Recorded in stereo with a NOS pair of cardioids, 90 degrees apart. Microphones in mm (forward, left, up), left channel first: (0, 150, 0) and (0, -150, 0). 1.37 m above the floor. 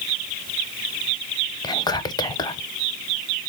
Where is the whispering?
15° left, 0.7 m.